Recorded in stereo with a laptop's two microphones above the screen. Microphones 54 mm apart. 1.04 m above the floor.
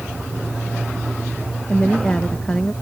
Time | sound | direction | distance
1.7 | a woman speaking | 20° left (ahead or behind) | ?